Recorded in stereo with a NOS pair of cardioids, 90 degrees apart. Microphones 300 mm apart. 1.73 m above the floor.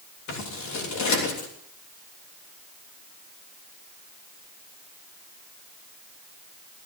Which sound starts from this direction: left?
Scissors, at 0.3 s.